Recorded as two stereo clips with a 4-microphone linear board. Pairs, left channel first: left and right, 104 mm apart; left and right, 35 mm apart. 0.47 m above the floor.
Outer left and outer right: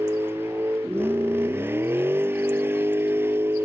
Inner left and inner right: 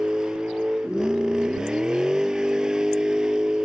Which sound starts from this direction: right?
A vehicle, at 0.0 s.